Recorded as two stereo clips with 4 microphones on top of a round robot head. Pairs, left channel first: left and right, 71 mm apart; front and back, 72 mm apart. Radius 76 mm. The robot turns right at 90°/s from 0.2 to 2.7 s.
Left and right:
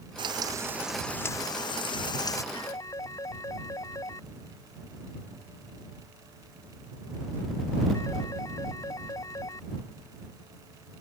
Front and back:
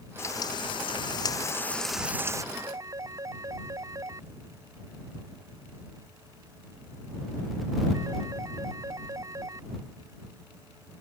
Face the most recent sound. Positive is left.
turn(degrees=135)